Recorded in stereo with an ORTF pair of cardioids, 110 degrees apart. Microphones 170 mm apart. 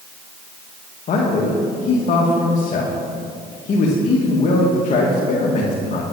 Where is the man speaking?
45° left, 1.7 m.